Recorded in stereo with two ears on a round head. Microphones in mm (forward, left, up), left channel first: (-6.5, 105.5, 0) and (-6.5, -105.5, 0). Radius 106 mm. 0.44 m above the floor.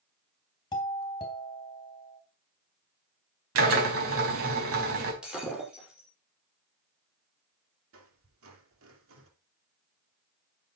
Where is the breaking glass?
5° right (ahead or behind), 5.5 m.